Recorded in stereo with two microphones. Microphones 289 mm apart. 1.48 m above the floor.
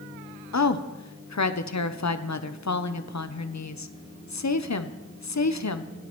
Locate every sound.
0.5 s a woman speaking: 80° left, 0.6 m